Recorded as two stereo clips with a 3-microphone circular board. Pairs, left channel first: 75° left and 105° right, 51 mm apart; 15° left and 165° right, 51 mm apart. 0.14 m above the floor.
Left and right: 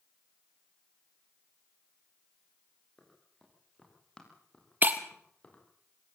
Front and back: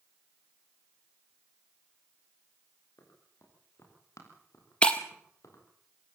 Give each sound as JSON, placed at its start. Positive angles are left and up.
{"t": 3.0, "sound": "running footsteps", "azimuth_deg": -5, "distance_m": 8.0}
{"t": 4.8, "sound": "breaking glass", "azimuth_deg": -55, "distance_m": 1.4}